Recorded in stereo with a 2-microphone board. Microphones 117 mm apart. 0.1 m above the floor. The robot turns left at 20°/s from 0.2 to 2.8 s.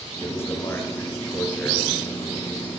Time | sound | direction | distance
0.2 | a man speaking | 20° left (ahead or behind) | 1.7 m